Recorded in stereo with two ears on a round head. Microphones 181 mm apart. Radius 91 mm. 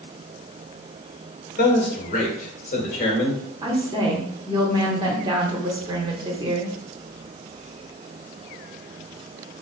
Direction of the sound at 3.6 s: 20° right (ahead or behind).